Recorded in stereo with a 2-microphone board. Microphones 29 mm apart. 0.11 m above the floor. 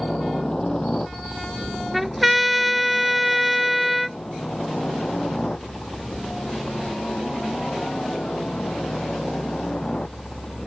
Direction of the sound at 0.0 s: 25° left (ahead or behind).